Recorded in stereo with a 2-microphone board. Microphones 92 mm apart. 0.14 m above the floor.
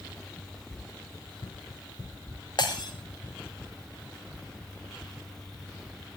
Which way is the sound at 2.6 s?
55° left (ahead or behind).